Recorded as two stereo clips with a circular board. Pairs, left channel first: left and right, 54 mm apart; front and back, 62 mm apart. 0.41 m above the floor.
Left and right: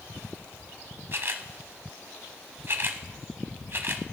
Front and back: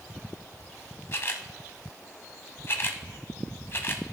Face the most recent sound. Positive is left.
turn(degrees=-50)